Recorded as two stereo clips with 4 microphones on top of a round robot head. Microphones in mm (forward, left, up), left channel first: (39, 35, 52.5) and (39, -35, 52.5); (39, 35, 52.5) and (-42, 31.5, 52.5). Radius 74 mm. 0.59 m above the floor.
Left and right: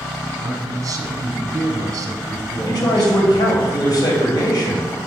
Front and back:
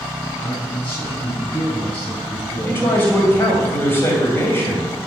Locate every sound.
0.4 s a man speaking: 60° right, 2 m
2.7 s a man speaking: 65° left, 3 m